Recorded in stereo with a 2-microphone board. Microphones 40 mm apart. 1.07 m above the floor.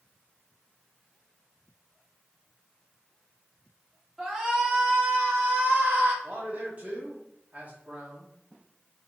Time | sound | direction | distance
4.2 | a shout | 15° right (ahead or behind) | 2 m
6.2 | a man speaking | 30° right (ahead or behind) | 2.5 m